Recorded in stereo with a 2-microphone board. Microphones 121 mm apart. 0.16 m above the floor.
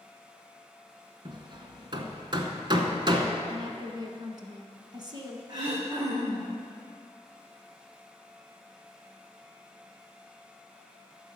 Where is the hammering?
40° right (ahead or behind), 1.0 m.